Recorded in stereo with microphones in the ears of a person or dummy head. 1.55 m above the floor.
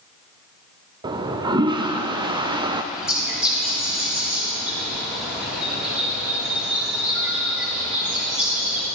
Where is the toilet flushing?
20° right (ahead or behind), 0.5 m.